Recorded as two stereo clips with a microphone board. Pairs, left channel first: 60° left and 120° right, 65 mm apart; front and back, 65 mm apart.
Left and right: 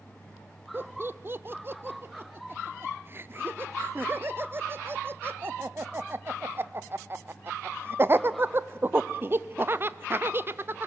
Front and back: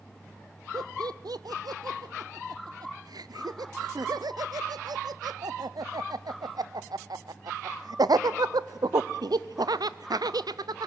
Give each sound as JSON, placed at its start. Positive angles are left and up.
{"t": 0.7, "sound": "laughter", "azimuth_deg": -175, "distance_m": 0.6}